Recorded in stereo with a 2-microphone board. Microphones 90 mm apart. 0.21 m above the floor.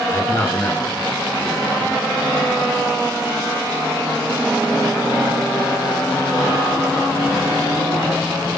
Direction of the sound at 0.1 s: 25° left (ahead or behind).